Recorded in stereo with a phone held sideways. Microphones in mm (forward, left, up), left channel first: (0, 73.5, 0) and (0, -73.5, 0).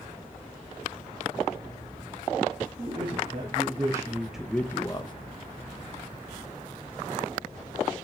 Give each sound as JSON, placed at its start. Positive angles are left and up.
{"t": 2.8, "sound": "a man speaking", "side_deg": -35, "distance_m": 1.7}